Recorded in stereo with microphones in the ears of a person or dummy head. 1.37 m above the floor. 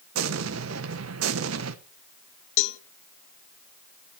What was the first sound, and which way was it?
An explosion, 75° right (ahead or behind).